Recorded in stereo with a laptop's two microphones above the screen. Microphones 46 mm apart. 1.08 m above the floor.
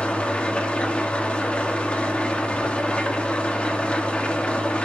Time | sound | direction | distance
0.0 | an engine running | 25° left (ahead or behind) | 1.0 m